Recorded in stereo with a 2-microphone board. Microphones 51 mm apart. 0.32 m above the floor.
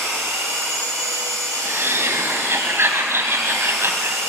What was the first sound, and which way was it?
An engine running, 70° right (ahead or behind).